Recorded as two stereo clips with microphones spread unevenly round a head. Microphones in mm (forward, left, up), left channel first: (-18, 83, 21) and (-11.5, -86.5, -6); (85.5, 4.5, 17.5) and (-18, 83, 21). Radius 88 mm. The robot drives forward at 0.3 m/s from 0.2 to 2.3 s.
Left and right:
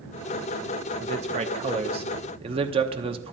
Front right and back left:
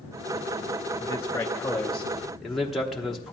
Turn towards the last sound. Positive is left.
turn(degrees=-125)